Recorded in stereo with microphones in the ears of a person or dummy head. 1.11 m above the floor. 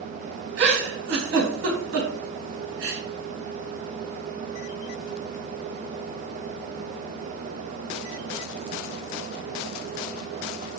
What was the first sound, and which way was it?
A giggle, 65° right (ahead or behind).